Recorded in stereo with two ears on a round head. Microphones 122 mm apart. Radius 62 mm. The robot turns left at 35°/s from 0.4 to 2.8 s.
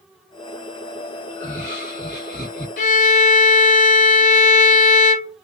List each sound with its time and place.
1.3 s laughter: 125° left, 1.4 m; by 2.7 s 75° left, 1.4 m
2.8 s a violin: 60° left (ahead or behind), 0.6 m; by 5.4 s 55° left (ahead or behind), 0.6 m